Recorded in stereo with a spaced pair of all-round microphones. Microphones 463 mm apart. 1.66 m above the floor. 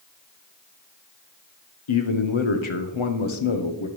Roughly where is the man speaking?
Left.